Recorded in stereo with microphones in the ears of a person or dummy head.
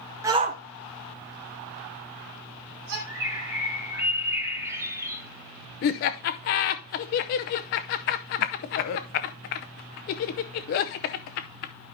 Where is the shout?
15° right (ahead or behind), 0.7 m; by 3.0 s 75° right (ahead or behind), 3 m.